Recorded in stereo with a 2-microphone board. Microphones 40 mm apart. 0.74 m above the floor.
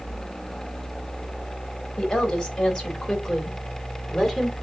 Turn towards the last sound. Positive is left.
turn(degrees=10)  # may be behind; listen again after turning